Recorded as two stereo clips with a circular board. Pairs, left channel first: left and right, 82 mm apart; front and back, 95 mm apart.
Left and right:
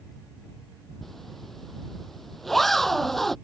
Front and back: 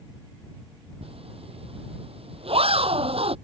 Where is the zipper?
Straight behind.